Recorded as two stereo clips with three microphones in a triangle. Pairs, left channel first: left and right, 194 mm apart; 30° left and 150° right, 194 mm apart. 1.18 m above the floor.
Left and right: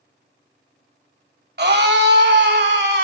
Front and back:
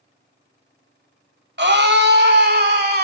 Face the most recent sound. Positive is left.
turn(degrees=-115)